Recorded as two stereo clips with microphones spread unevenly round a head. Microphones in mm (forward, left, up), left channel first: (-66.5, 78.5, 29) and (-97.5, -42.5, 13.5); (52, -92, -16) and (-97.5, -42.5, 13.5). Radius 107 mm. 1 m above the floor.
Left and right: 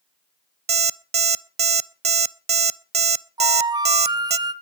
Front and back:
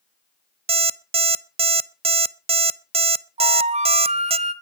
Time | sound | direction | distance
0.7 | an alarm clock | 145° right | 0.6 m
3.4 | a flute | 165° right | 1.6 m